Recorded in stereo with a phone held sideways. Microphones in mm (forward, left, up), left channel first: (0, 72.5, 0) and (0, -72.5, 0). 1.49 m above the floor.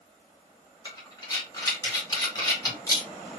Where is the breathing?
25° left (ahead or behind), 1.2 m.